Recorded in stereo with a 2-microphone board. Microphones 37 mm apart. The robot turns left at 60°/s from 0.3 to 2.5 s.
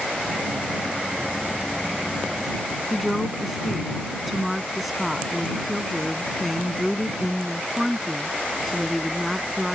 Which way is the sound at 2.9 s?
5° right (ahead or behind).